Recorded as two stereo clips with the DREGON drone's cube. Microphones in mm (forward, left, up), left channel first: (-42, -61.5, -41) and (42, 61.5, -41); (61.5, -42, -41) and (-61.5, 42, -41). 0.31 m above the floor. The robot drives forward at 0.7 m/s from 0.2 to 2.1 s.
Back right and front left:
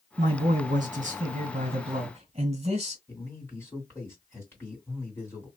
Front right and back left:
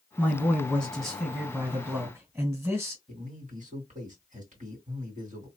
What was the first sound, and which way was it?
A man speaking, 40° left.